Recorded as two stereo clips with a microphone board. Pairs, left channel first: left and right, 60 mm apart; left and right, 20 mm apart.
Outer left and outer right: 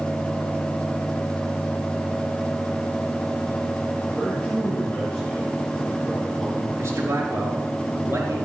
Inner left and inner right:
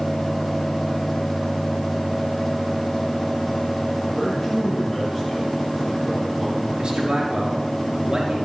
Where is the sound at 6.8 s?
40° right (ahead or behind), 3 m.